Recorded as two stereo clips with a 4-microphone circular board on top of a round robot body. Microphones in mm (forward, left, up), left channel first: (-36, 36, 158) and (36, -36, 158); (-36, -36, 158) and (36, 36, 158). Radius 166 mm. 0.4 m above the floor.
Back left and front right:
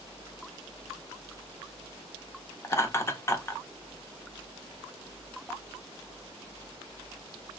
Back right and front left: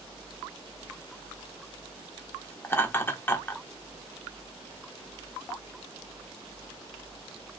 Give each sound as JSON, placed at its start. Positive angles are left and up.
{"t": 2.6, "sound": "laughter", "azimuth_deg": 175, "distance_m": 1.0}